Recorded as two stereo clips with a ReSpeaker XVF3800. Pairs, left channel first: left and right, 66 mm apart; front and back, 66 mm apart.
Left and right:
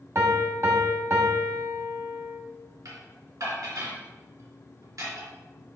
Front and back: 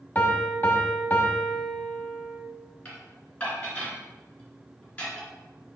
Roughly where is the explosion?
I don't hear an explosion.